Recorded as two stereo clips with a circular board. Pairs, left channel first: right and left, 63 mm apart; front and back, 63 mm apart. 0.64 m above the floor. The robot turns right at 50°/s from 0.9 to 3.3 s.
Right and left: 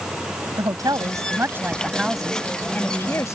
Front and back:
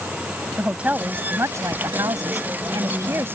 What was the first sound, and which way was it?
A woman speaking, 115° left.